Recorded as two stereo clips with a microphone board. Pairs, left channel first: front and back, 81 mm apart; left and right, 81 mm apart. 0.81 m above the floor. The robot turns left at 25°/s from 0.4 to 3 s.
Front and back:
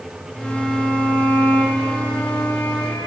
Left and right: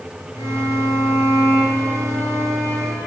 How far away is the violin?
About 4.5 m.